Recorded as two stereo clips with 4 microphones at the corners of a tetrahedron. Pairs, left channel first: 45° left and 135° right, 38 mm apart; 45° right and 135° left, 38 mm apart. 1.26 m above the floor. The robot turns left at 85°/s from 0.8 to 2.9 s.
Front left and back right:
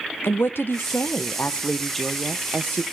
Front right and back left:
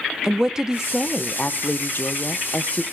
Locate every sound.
0.2 s a woman speaking: 60° left, 0.7 m; by 2.8 s 115° right, 0.7 m